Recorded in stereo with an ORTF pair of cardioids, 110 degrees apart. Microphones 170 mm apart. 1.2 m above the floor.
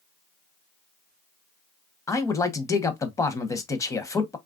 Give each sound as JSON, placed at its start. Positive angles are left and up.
{"t": 2.1, "sound": "a man speaking", "azimuth_deg": 20, "distance_m": 0.7}